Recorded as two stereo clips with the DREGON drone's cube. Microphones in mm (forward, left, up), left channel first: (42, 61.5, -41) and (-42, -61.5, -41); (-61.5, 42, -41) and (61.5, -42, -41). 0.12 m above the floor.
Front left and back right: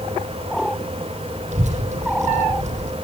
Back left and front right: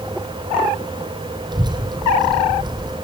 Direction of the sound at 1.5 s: 90° right.